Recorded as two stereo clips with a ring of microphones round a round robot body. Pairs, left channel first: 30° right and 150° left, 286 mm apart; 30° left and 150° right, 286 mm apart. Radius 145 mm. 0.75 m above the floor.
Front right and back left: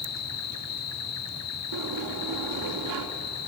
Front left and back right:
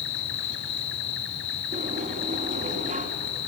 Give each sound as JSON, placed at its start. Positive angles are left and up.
{"t": 0.0, "sound": "an insect", "azimuth_deg": -15, "distance_m": 1.4}
{"t": 1.7, "sound": "a sliding door", "azimuth_deg": 145, "distance_m": 2.0}